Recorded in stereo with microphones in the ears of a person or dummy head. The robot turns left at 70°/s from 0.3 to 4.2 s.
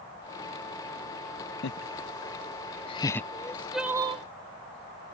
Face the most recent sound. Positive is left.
turn(degrees=-35)